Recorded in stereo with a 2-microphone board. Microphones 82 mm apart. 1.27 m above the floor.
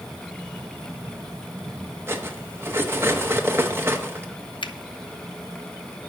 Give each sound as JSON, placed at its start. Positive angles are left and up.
{"t": 2.1, "sound": "cutlery clinking", "side_deg": -30, "distance_m": 0.9}
{"t": 4.6, "sound": "a finger snap", "side_deg": 75, "distance_m": 0.5}